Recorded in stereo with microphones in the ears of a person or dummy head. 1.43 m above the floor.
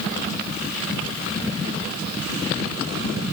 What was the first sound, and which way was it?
Only background noise.